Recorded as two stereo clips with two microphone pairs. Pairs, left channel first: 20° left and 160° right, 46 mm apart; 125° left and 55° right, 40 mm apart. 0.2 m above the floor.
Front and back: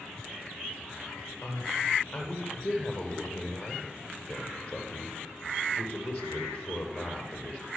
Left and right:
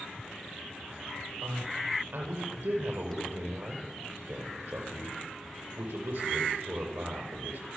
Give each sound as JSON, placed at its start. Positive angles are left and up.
{"t": 1.4, "sound": "a man speaking", "azimuth_deg": -50, "distance_m": 7.5}